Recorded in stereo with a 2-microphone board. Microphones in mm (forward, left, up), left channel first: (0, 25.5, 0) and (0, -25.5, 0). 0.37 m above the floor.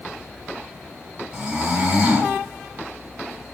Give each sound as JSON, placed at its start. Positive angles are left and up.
{"t": 1.3, "sound": "snoring", "side_deg": -15, "distance_m": 3.0}